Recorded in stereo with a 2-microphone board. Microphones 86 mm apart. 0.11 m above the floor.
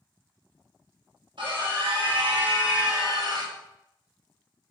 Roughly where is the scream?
Right.